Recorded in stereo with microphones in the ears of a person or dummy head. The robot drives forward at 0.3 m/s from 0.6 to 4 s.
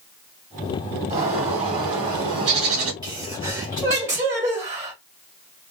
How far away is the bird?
About 1.7 m.